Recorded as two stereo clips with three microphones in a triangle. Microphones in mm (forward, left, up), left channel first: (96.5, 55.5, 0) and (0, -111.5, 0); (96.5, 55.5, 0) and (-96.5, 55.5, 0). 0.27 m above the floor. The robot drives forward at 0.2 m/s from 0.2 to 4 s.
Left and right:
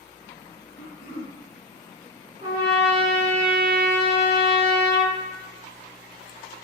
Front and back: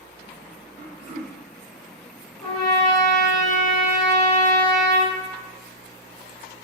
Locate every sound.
0.8 s throat clearing: 105° left, 1.2 m; by 1.4 s 110° left, 1.2 m
2.4 s a trumpet: 80° right, 1.2 m; by 5.2 s 100° right, 1.2 m